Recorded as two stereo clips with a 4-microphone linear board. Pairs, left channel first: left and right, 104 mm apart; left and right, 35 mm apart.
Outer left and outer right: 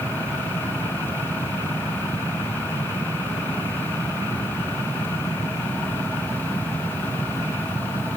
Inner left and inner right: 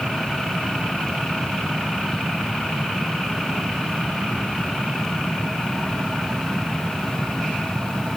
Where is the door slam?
No door slam in this recording.